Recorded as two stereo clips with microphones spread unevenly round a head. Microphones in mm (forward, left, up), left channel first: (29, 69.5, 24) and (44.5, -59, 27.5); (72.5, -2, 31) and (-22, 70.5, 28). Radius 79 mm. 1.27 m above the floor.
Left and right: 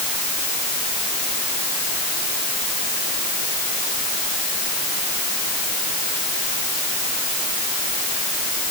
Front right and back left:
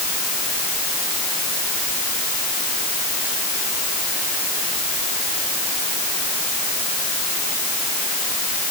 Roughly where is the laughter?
No laughter in this recording.